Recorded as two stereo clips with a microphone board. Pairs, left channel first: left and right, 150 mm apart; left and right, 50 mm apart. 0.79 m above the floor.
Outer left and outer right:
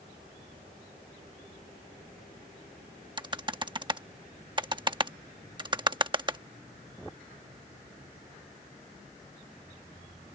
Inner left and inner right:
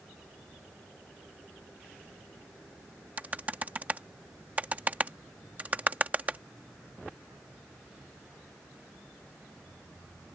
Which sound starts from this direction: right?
Typing on a keyboard, at 3.2 s.